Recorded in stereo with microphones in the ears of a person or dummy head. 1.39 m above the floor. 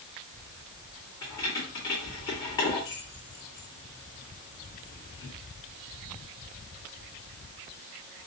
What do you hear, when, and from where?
1.2 s keys jangling: 20° left (ahead or behind), 2 m